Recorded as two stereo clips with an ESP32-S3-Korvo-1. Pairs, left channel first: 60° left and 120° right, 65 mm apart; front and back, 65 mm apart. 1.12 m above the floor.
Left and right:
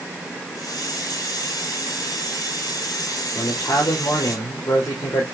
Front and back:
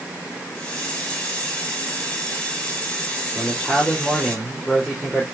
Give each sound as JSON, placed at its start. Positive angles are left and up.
{"t": 0.6, "sound": "a hiss", "azimuth_deg": 75, "distance_m": 3.5}
{"t": 3.4, "sound": "a man speaking", "azimuth_deg": 80, "distance_m": 3.5}